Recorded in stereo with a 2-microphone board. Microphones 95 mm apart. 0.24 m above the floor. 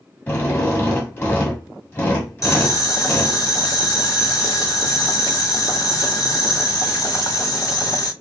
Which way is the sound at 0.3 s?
20° left (ahead or behind).